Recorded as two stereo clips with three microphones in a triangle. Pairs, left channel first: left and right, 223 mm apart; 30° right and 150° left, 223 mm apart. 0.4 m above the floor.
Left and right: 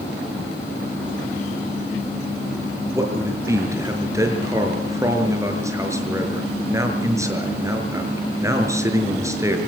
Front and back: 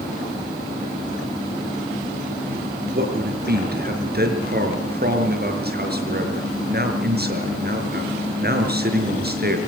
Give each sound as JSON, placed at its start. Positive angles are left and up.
{"t": 2.9, "sound": "a man speaking", "azimuth_deg": -165, "distance_m": 5.5}